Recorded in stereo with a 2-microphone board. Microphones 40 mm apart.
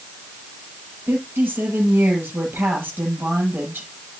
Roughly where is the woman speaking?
Right.